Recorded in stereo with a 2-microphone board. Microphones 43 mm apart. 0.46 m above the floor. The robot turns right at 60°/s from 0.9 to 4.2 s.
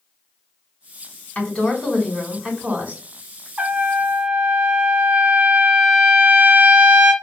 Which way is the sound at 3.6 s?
85° right.